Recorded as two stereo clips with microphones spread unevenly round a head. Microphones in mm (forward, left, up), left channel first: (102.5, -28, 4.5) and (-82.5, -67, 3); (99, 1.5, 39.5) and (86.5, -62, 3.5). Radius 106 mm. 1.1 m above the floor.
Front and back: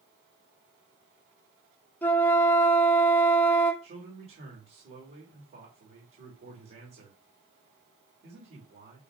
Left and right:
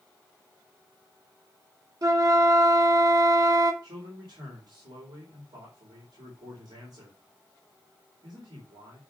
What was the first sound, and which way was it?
A flute, 70° right.